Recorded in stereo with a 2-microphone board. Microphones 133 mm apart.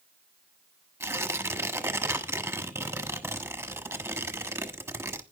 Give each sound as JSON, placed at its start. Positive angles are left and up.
{"t": 1.0, "sound": "tearing paper", "side_deg": -20, "distance_m": 1.2}